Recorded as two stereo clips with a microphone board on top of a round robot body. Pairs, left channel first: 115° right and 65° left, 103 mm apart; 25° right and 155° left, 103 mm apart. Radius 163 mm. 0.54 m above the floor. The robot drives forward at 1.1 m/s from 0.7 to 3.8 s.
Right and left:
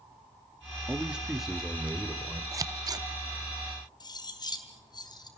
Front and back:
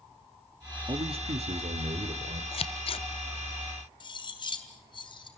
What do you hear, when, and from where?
0.9 s a man speaking: 140° left, 1.4 m; by 2.4 s 165° left, 3 m
2.5 s scissors: 10° left, 1.3 m; by 3.0 s 15° left, 0.7 m
4.0 s cutlery clinking: 65° right, 3.5 m